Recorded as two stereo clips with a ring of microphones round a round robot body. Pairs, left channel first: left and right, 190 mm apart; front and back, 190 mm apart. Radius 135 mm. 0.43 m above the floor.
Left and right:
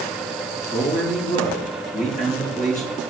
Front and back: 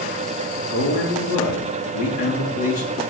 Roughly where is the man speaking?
Ahead left.